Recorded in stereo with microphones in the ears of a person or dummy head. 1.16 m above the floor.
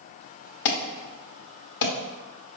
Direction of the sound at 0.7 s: 65° left (ahead or behind).